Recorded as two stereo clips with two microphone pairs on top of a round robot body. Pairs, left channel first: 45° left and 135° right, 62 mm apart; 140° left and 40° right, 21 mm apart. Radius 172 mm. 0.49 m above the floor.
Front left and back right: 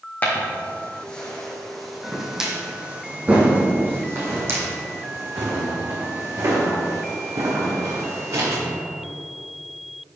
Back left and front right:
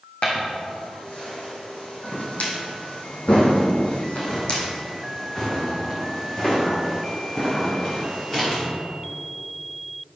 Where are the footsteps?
105° left, 2 m; by 8.6 s 155° right, 4 m.